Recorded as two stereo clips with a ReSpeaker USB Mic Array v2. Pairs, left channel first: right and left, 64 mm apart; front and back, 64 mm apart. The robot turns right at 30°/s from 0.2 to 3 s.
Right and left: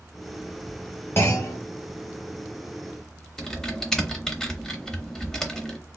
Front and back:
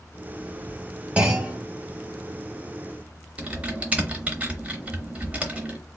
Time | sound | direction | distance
1.2 | a clunk | 120° right | 1.0 m
3.4 | typing on a keyboard | 160° right | 0.7 m